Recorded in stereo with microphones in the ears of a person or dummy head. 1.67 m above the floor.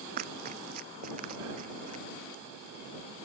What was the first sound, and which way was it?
Running footsteps, 50° right (ahead or behind).